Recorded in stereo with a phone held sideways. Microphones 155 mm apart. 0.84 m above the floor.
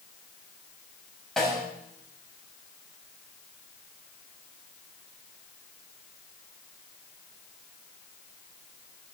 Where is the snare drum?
5° left (ahead or behind), 6.5 m.